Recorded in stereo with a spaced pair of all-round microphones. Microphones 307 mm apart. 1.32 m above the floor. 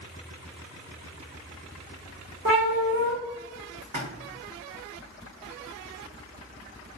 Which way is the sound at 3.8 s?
75° right (ahead or behind).